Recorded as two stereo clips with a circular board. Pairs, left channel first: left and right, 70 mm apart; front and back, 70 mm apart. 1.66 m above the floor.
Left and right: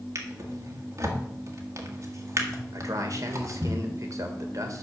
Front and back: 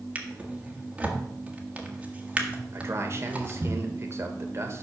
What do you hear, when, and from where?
0.1 s a drawer: 115° right, 1.5 m
2.7 s a man speaking: 130° right, 1.6 m